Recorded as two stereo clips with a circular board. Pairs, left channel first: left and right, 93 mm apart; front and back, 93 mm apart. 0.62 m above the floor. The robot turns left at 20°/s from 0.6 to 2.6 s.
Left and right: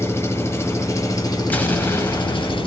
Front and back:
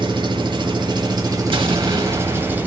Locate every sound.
0.0 s an engine running: 150° left, 0.8 m; by 2.7 s 110° left, 0.8 m
1.5 s an explosion: 160° left, 0.8 m; by 2.7 s 140° left, 0.8 m